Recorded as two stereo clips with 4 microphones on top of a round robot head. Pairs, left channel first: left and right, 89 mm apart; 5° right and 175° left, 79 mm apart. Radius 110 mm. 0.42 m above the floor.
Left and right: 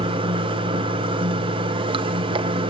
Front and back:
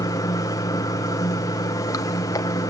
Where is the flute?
I don't hear a flute.